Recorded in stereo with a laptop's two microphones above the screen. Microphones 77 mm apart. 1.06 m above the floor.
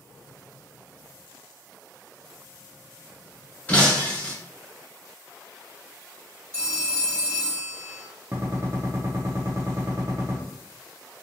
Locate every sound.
3.7 s breaking glass: 20° left (ahead or behind), 1.0 m
6.5 s a phone ringing: 30° right (ahead or behind), 1.5 m
8.3 s a gunshot: 35° right (ahead or behind), 0.6 m